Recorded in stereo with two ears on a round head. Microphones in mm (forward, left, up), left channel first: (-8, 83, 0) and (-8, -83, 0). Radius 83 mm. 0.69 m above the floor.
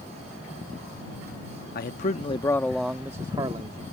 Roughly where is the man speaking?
Left.